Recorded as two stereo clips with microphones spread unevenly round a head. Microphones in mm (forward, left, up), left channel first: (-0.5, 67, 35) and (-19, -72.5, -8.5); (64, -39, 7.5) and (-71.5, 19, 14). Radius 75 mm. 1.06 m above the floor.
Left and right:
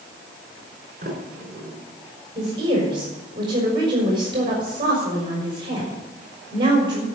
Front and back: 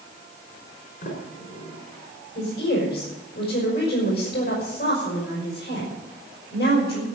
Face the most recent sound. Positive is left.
turn(degrees=-35)